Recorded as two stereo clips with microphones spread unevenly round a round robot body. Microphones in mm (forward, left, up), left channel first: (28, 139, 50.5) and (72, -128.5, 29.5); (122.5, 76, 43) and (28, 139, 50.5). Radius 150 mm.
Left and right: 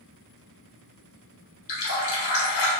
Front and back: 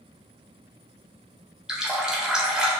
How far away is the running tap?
About 1.1 m.